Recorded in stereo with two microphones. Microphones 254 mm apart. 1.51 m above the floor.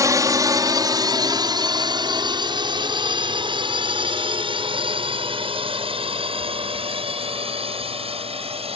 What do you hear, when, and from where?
0.0 s a drone: 10° right (ahead or behind); by 8.8 s 20° right (ahead or behind)